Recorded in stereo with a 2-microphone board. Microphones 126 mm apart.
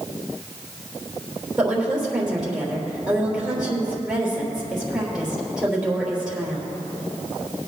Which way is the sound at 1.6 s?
5° right (ahead or behind).